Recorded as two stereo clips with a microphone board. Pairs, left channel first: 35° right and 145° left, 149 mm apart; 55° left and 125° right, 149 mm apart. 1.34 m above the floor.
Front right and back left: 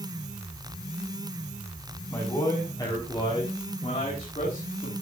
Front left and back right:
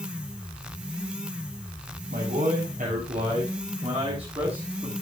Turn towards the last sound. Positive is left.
turn(degrees=-65)